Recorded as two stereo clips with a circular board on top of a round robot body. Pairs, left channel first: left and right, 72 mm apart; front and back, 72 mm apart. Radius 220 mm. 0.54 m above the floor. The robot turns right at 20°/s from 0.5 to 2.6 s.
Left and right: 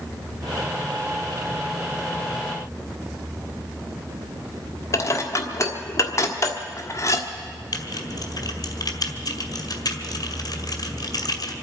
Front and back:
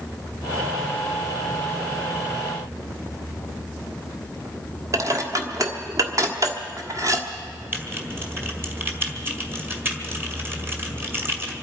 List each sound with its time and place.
4.9 s dishes clattering: 135° left, 1.4 m
7.7 s typing on a keyboard: 120° left, 1.8 m